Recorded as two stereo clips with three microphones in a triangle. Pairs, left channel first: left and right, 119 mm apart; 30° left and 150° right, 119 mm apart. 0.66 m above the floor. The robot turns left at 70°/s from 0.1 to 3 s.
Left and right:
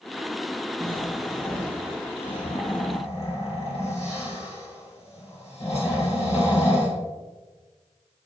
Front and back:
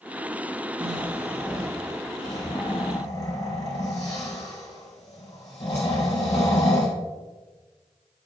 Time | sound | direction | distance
0.8 | snoring | 145° right | 3.5 m